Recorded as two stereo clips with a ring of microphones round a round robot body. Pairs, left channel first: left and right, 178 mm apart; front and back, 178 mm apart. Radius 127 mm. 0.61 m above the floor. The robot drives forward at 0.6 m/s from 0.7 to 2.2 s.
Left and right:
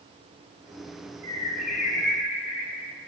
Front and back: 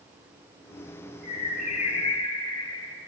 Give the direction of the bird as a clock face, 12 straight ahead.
11 o'clock.